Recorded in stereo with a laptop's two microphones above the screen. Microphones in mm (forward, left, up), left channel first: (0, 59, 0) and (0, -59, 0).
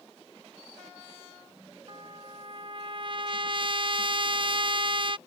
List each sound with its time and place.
1.9 s a trumpet: 45° right (ahead or behind)